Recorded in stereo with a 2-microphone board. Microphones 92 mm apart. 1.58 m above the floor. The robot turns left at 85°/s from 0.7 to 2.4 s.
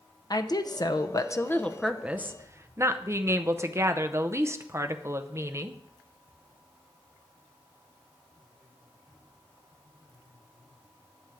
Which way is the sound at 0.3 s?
100° left.